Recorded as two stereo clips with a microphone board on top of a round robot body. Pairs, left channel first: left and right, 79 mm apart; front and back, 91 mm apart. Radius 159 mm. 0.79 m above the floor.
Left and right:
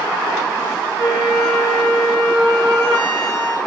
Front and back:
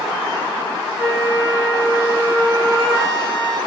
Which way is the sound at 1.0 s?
115° right.